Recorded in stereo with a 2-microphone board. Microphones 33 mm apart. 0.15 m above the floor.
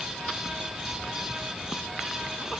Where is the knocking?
No knocking in this recording.